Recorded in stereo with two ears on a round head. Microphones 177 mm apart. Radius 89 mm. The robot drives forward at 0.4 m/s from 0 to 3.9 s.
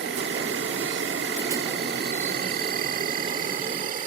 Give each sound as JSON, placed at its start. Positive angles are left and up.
{"t": 0.0, "sound": "an insect", "side_deg": -60}